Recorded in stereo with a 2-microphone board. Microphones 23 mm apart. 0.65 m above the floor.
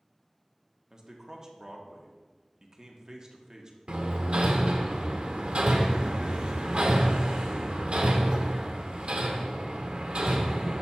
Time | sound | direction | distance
0.9 | a man speaking | 25° right (ahead or behind) | 1.0 m
3.9 | hammering | 55° right (ahead or behind) | 0.8 m